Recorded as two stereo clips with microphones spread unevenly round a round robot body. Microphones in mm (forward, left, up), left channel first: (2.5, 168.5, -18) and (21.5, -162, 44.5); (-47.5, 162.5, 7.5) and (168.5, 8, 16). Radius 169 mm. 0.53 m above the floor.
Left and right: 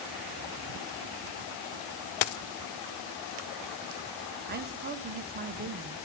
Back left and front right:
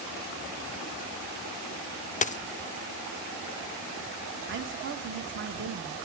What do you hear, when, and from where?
2.2 s a dropped coin: 75° left, 0.5 m
4.5 s a woman speaking: 25° right, 1.1 m